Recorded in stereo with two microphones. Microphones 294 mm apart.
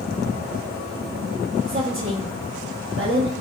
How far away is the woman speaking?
About 0.7 m.